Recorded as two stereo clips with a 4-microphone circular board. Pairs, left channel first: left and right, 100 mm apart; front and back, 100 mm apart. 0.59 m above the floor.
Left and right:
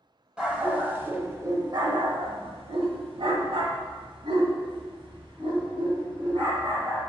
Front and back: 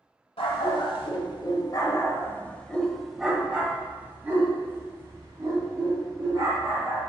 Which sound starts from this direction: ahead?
A dog barking, at 0.4 s.